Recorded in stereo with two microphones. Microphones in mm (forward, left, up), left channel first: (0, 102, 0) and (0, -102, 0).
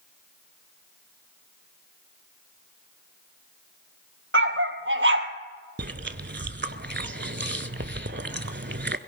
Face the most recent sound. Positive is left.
turn(degrees=-60)  # may be behind; listen again after turning